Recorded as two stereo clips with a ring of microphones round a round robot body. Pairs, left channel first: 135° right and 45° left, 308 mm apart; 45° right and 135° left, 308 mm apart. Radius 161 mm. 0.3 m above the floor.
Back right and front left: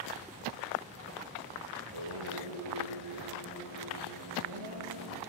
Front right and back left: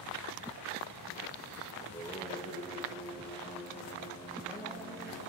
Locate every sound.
1.8 s singing: 35° left, 3.5 m